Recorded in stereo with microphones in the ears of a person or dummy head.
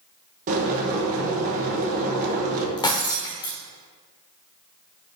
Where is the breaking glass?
25° left (ahead or behind), 1.0 m.